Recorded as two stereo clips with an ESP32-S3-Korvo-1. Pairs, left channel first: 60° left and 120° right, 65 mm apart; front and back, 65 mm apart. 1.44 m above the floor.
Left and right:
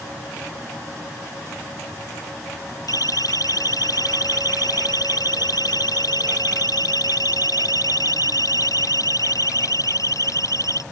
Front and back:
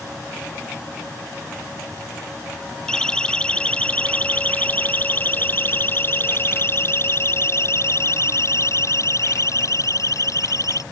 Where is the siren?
80° left; by 10.8 s 30° left.